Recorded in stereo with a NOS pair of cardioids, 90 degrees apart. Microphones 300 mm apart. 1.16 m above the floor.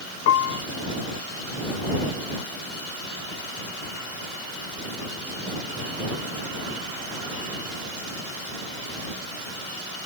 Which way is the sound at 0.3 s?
60° left.